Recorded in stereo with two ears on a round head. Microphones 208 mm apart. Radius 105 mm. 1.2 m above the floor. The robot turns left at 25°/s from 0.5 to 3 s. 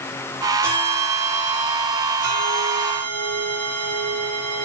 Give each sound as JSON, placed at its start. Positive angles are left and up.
{"t": 0.6, "sound": "a bell", "azimuth_deg": -10, "distance_m": 6.0}